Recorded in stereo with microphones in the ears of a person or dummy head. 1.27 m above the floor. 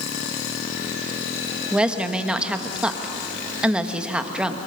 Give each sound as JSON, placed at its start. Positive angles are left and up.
{"t": 1.7, "sound": "a woman speaking", "side_deg": -5, "distance_m": 1.3}